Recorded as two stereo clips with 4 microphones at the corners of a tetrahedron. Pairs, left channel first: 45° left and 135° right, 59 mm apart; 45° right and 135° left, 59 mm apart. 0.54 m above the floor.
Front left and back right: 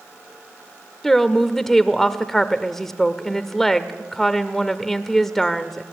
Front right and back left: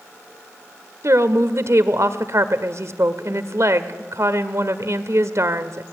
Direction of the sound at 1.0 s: 130° left.